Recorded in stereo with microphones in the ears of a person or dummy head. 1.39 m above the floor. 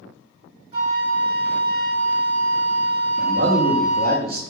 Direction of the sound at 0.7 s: 40° right (ahead or behind).